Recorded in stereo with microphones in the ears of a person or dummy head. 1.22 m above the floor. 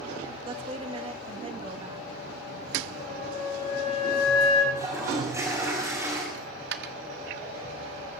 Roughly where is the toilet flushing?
Centre.